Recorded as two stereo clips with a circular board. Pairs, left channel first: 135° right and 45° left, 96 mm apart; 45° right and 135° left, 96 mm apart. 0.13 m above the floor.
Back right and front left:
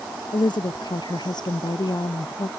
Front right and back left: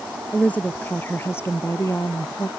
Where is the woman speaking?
115° right; by 2.5 s 95° right.